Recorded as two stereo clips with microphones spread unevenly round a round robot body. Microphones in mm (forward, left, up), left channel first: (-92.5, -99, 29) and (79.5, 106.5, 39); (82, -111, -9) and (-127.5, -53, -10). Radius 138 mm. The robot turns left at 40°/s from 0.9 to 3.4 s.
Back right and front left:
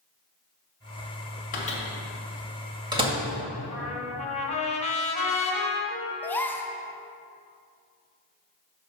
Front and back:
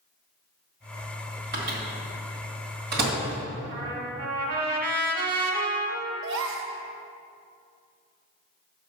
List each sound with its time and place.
1.5 s a microwave: straight behind, 1.8 m; by 3.1 s 115° left, 1.8 m
3.7 s a trumpet: 165° left, 1.5 m
6.2 s a gasp: 150° left, 0.5 m